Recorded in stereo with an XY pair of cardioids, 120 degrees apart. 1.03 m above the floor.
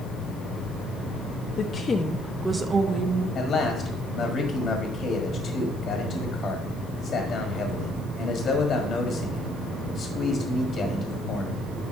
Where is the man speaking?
45° left, 1.5 m.